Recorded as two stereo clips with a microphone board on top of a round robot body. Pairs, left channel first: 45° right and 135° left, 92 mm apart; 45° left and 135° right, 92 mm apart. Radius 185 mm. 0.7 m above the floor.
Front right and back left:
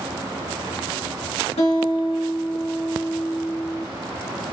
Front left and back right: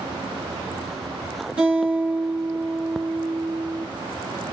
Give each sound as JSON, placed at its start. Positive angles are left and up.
{"t": 1.6, "sound": "a guitar", "azimuth_deg": -55, "distance_m": 1.7}